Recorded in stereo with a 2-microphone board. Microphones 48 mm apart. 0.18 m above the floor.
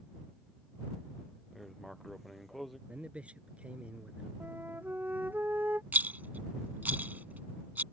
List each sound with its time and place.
1.5 s writing: centre (ahead or behind)
2.9 s a man speaking: 25° right (ahead or behind)
4.4 s a flute: 40° right (ahead or behind)
5.9 s a rattle: 40° right (ahead or behind)